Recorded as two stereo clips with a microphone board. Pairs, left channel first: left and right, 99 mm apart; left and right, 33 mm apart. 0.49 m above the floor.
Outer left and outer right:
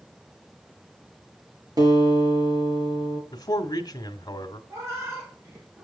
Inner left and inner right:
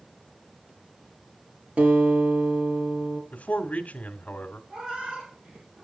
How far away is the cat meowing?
About 5 m.